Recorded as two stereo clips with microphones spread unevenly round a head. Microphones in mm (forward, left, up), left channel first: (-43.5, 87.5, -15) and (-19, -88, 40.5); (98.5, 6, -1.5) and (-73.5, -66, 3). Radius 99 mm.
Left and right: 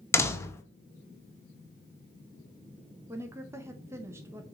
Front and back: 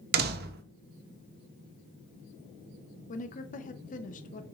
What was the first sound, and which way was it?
A door slam, 165° left.